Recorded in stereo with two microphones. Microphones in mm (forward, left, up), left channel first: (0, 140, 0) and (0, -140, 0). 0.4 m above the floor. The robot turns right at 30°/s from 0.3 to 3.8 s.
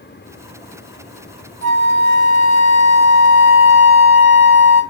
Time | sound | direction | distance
1.6 | a flute | 40° left | 1.5 m